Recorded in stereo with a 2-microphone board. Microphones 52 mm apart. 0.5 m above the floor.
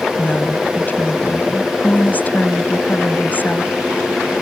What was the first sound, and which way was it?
A woman speaking, 40° left (ahead or behind).